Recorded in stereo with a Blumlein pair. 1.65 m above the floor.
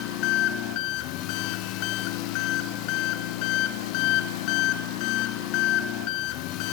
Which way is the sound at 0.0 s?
40° left.